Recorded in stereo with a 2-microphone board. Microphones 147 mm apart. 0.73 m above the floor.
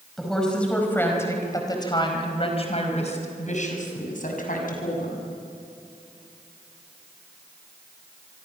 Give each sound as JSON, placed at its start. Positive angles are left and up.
{"t": 0.2, "sound": "a woman speaking", "side_deg": 0, "distance_m": 5.0}